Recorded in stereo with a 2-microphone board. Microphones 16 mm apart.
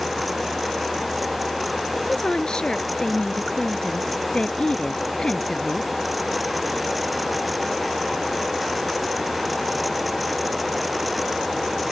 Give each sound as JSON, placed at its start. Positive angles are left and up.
{"t": 1.9, "sound": "a woman speaking", "side_deg": 70}